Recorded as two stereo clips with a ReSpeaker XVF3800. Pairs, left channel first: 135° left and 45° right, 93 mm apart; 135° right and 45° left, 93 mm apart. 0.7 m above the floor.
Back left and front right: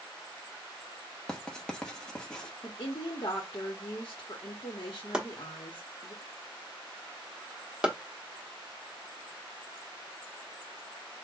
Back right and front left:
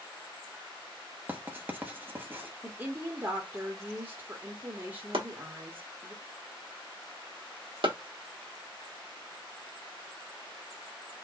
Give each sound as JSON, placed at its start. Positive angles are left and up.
{"t": 1.3, "sound": "writing", "azimuth_deg": 65, "distance_m": 0.9}
{"t": 2.6, "sound": "a woman speaking", "azimuth_deg": 100, "distance_m": 1.1}
{"t": 5.1, "sound": "chopping", "azimuth_deg": 35, "distance_m": 1.0}